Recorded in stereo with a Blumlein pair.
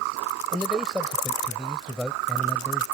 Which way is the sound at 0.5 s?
10° left.